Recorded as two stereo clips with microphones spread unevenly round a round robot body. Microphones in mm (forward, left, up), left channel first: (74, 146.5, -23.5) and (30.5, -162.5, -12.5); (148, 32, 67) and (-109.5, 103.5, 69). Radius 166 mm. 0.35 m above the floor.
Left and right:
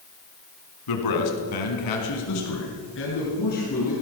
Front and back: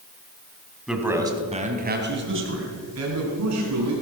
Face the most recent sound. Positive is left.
turn(degrees=150)